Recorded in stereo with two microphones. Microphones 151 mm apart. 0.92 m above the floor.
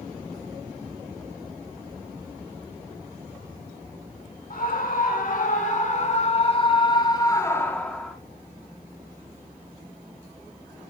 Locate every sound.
4.5 s a scream: 70° left (ahead or behind), 3.5 m; by 8.2 s 5° left (ahead or behind), 2 m